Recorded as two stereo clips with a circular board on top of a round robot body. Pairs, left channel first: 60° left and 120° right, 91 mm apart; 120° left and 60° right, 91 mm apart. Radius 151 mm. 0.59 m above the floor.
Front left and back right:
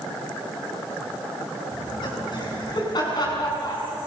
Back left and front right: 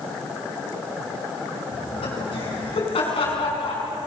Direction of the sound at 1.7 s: 95° left.